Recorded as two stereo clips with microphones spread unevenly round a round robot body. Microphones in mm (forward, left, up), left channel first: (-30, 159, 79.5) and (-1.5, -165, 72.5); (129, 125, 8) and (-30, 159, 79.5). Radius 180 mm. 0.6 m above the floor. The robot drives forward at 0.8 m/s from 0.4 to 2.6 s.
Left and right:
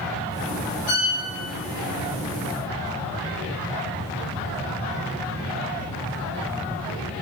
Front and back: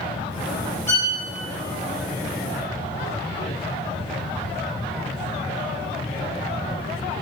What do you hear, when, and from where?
0.9 s a violin: 55° left, 2.0 m; by 1.1 s 60° left, 1.9 m